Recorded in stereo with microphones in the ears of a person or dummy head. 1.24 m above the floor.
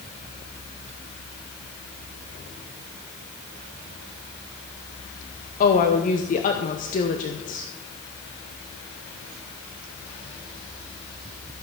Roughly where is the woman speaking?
Left.